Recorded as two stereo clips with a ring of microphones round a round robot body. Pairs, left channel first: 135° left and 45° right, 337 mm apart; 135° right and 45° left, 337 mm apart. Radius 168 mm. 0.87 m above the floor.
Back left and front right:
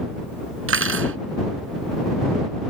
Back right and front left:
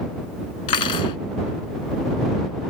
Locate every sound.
0.7 s cutlery clinking: 100° right